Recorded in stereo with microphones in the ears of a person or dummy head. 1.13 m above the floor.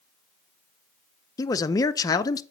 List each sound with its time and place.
1.4 s a man speaking: 20° left (ahead or behind), 0.5 m